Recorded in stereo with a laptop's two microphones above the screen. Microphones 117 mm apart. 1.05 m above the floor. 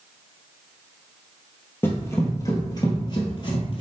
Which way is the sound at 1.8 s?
20° left (ahead or behind).